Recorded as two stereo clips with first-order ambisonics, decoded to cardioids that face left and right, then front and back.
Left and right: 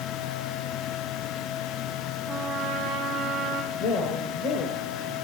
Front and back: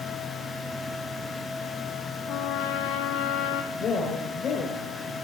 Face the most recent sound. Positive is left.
turn(degrees=55)